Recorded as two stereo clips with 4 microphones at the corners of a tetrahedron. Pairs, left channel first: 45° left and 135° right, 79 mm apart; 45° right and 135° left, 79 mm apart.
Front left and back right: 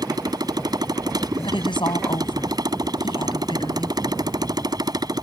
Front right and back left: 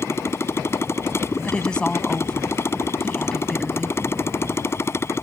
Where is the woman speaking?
35° left.